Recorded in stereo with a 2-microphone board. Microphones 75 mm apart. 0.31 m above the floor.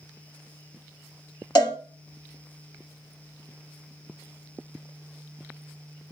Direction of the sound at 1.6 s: 70° left (ahead or behind).